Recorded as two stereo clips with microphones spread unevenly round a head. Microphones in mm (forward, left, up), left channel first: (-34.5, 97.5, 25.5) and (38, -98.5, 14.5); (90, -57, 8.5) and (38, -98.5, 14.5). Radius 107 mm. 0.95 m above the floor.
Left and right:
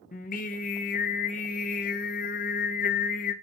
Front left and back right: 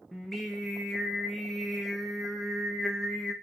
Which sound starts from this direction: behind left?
Singing, at 0.1 s.